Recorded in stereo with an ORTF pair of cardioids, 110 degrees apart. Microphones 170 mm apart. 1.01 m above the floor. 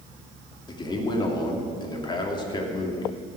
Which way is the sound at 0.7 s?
25° left.